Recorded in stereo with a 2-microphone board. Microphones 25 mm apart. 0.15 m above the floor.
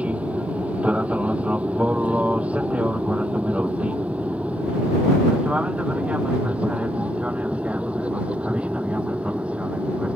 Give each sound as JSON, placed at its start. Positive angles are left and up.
{"t": 0.0, "sound": "an aircraft", "side_deg": -60}